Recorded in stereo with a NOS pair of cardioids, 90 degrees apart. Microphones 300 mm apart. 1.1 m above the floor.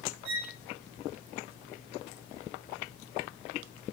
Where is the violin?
65° right, 1.0 m.